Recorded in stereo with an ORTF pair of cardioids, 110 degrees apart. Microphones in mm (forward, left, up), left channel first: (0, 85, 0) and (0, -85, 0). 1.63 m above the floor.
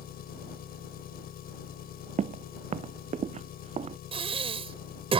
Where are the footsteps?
45° right.